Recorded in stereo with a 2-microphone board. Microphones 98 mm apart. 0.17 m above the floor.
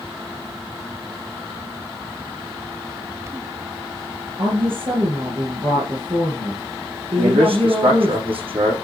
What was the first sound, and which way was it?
A woman speaking, 65° right (ahead or behind).